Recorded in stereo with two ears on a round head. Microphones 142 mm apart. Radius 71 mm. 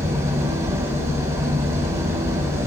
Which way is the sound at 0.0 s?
20° right (ahead or behind).